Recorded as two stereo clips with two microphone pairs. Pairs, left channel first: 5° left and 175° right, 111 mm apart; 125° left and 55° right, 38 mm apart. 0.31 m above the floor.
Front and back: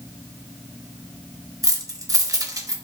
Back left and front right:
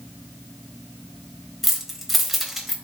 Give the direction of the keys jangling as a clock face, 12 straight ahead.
5 o'clock.